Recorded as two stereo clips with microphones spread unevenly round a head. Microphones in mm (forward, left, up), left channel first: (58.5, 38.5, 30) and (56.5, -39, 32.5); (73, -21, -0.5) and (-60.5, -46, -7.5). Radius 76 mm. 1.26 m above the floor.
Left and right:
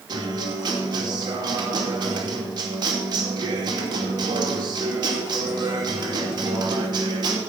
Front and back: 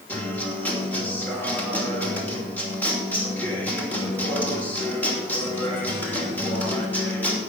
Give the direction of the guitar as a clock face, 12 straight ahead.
2 o'clock.